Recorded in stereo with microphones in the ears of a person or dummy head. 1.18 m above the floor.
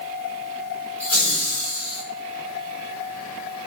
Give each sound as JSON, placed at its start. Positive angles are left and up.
{"t": 1.0, "sound": "laughter", "side_deg": 20, "distance_m": 2.0}